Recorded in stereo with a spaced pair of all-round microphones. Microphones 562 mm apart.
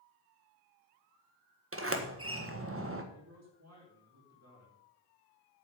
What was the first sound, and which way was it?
A sliding door, 25° right (ahead or behind).